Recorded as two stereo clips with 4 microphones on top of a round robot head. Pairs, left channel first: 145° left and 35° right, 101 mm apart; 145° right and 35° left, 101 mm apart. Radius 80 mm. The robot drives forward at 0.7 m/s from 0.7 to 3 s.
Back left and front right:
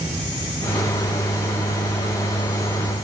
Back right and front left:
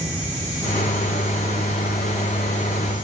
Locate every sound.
Only background noise.